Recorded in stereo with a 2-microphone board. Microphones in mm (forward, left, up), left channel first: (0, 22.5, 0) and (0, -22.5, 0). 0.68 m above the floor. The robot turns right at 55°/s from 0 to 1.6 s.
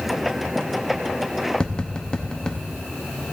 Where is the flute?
I don't hear a flute.